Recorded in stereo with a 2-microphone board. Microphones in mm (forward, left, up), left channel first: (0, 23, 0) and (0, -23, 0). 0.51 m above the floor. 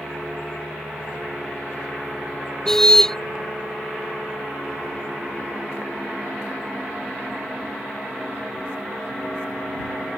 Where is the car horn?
10° left (ahead or behind).